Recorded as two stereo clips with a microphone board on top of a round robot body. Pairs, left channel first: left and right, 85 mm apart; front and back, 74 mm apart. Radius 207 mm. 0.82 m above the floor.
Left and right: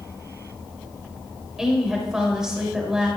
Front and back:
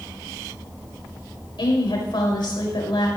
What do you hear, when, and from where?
1.6 s a woman speaking: 5° right, 6 m